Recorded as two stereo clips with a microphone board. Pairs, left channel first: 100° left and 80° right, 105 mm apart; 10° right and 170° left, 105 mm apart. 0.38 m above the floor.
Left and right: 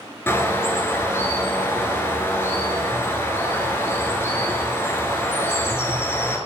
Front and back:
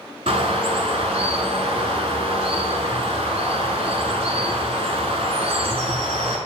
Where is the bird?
165° left, 0.9 m.